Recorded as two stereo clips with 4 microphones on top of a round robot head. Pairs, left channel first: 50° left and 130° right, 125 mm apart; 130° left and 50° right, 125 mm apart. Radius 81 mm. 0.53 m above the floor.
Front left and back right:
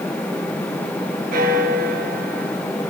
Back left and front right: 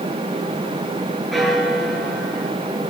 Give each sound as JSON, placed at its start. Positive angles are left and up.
{"t": 1.3, "sound": "a bell", "azimuth_deg": -140, "distance_m": 6.5}